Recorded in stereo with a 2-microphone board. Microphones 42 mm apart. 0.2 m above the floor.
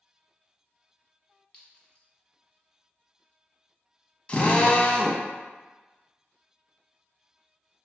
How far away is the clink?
About 1.0 m.